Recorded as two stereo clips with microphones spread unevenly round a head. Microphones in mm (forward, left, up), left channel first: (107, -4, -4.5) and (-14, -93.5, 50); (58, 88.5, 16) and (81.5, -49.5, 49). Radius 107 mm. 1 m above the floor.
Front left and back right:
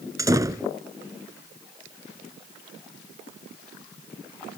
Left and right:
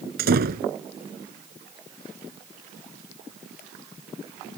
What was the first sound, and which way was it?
A door slam, 75° right.